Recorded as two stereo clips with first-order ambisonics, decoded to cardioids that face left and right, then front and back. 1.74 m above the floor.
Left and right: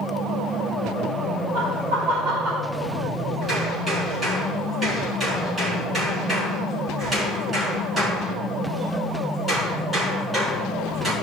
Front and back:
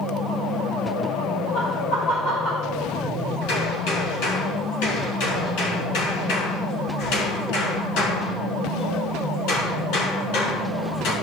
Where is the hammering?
10° right, 6 m.